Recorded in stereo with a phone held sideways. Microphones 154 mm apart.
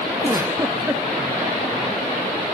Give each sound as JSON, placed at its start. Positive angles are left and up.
{"t": 0.2, "sound": "a giggle", "side_deg": -15, "distance_m": 1.8}